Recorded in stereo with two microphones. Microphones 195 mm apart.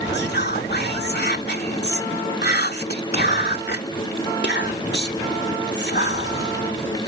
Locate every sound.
0.1 s whispering: 60° left (ahead or behind)